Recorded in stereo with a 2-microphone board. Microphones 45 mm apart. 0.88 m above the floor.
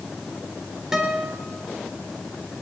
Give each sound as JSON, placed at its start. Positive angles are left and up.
{"t": 0.9, "sound": "a guitar", "side_deg": -10, "distance_m": 3.0}